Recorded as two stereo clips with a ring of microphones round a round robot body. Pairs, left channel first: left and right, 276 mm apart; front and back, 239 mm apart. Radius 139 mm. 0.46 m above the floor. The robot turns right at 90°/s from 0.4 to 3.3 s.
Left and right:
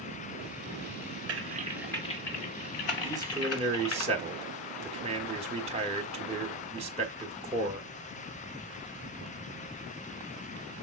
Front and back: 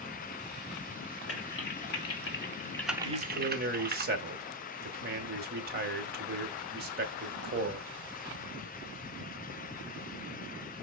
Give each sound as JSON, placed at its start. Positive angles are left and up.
{"t": 1.3, "sound": "typing on a keyboard", "azimuth_deg": -50, "distance_m": 1.2}
{"t": 3.0, "sound": "a man speaking", "azimuth_deg": -175, "distance_m": 1.4}